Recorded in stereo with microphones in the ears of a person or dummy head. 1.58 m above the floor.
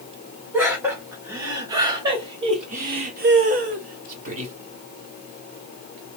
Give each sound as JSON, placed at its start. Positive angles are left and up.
{"t": 0.5, "sound": "laughter", "side_deg": -10, "distance_m": 1.6}